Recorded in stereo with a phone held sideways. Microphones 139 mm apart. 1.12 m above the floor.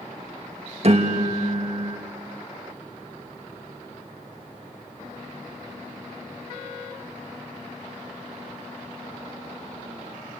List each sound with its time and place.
0.8 s a piano: 50° right (ahead or behind), 1.6 m